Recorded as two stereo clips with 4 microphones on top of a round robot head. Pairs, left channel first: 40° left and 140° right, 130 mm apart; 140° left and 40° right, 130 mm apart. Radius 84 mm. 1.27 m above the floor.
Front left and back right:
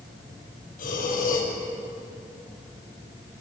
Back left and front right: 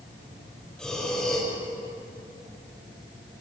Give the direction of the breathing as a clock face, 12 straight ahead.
10 o'clock.